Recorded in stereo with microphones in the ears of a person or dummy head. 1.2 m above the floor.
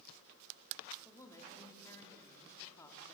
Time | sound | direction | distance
1.1 | a woman speaking | 20° left (ahead or behind) | 2.5 m